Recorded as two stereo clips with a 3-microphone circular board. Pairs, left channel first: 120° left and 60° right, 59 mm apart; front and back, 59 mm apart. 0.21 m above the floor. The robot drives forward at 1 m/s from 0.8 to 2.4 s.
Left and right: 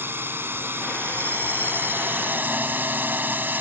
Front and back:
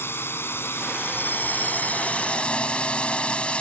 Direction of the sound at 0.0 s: 30° right.